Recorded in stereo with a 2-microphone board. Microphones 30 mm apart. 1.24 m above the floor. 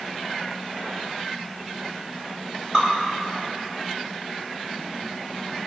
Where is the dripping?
25° right (ahead or behind), 4 m.